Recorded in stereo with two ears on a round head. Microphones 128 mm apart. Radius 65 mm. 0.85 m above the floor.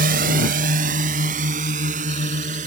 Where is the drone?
65° right (ahead or behind); by 2.7 s 50° right (ahead or behind).